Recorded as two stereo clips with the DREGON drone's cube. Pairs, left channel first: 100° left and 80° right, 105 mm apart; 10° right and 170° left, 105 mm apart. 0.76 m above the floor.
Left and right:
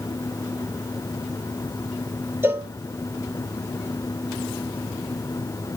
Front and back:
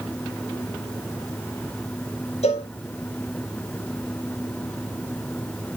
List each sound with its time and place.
2.4 s a cowbell: 10° right, 1.7 m